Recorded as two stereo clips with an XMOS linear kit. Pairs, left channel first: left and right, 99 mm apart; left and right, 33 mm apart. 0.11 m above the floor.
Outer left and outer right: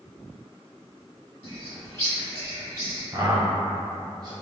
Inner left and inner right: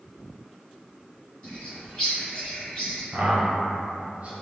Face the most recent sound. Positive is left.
turn(degrees=-30)  # may be behind; listen again after turning